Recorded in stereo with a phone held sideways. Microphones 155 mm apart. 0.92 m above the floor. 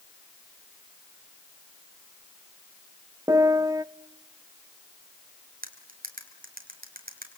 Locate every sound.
3.3 s a piano: 20° right (ahead or behind), 0.6 m
5.6 s cutlery clinking: 65° right (ahead or behind), 4 m